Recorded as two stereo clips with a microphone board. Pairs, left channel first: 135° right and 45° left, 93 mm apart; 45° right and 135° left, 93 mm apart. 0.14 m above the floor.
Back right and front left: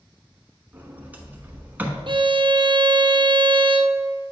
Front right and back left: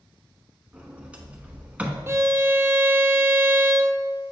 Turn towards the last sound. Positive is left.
turn(degrees=75)